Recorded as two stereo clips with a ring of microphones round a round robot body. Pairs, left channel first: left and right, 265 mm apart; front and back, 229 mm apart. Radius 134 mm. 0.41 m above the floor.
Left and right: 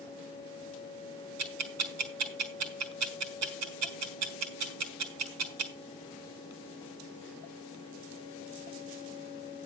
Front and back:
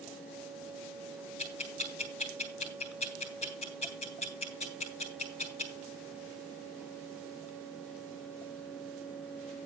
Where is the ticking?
65° right, 3.5 m.